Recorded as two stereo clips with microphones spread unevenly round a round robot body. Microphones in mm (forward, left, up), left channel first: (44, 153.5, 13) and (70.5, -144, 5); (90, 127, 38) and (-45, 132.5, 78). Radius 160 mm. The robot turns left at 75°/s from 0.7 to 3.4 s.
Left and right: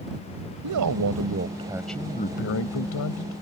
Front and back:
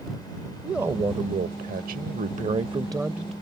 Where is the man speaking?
85° right; by 3.3 s 75° left.